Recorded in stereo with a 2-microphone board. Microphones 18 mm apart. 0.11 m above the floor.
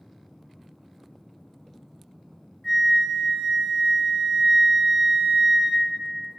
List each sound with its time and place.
2.6 s a flute: 15° left (ahead or behind), 1.0 m